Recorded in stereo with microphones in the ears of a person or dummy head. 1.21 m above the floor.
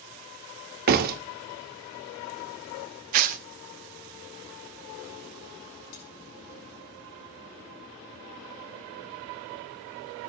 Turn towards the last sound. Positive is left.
turn(degrees=75)  # may be behind; listen again after turning